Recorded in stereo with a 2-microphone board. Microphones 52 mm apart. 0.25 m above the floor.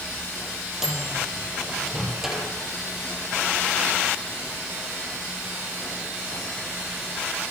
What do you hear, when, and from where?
0.8 s a microwave: 5° right (ahead or behind), 7.5 m